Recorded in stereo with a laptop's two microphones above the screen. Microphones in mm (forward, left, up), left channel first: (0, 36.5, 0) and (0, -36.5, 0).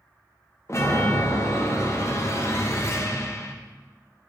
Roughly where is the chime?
Left.